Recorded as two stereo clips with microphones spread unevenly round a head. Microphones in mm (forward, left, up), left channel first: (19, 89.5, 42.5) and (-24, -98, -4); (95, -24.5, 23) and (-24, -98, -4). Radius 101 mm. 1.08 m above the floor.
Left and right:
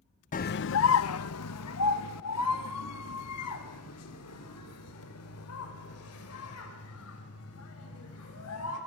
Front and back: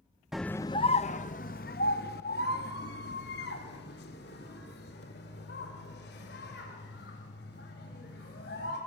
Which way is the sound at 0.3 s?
130° left.